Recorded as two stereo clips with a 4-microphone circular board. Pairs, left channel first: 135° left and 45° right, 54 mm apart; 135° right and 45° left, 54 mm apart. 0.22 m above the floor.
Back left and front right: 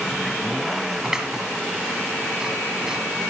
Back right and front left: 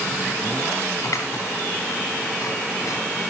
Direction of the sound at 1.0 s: 120° right.